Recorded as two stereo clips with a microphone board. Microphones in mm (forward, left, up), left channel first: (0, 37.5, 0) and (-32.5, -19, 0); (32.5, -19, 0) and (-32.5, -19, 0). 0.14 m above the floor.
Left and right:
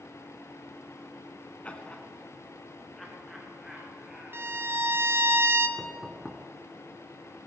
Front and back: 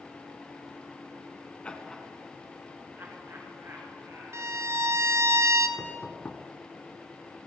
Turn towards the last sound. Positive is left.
turn(degrees=-35)